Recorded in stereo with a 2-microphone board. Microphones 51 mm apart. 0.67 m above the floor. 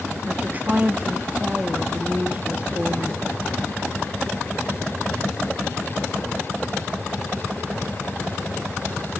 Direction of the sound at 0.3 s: 30° right (ahead or behind).